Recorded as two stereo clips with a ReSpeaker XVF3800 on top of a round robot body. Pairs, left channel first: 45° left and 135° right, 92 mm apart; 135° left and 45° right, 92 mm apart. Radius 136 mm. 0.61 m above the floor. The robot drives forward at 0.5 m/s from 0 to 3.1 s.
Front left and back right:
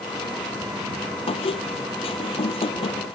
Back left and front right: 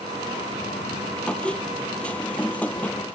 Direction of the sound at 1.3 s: 55° left.